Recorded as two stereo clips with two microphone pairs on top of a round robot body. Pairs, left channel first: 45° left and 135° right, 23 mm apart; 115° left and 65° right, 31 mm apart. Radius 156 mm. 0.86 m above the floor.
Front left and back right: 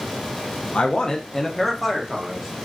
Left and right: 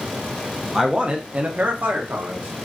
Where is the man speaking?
10° left, 0.5 m; by 2.5 s 65° right, 1.0 m.